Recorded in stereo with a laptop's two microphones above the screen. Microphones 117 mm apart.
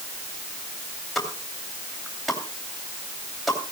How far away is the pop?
About 2.5 m.